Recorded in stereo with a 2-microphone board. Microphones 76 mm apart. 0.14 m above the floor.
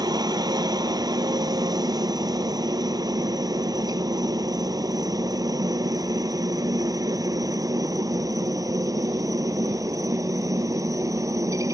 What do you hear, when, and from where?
0.0 s a helicopter: 60° right (ahead or behind); by 11.8 s 50° right (ahead or behind)